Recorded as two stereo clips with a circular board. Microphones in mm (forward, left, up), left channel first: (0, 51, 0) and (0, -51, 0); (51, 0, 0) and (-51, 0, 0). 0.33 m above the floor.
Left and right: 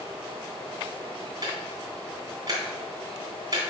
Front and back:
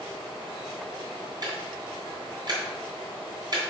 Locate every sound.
1.4 s ticking: 135° right, 3 m